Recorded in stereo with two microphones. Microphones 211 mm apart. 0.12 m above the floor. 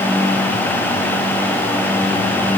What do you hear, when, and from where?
Only background noise.